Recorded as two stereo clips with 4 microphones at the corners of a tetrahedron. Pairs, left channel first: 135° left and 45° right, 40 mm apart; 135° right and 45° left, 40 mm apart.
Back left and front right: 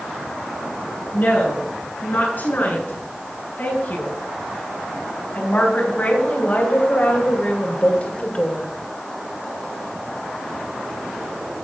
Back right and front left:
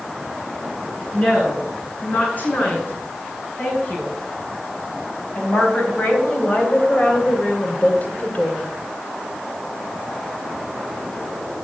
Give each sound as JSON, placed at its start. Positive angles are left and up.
{"t": 1.1, "sound": "a woman speaking", "azimuth_deg": 175, "distance_m": 8.0}